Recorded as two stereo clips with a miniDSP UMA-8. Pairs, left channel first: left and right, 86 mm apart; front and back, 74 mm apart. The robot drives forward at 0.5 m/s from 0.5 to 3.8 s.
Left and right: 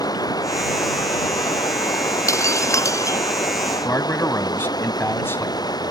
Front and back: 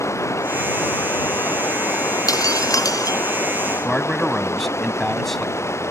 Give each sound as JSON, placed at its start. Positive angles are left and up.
{"t": 0.0, "sound": "running water", "azimuth_deg": 50}
{"t": 2.3, "sound": "breaking glass", "azimuth_deg": 35}
{"t": 3.9, "sound": "a man speaking", "azimuth_deg": 85}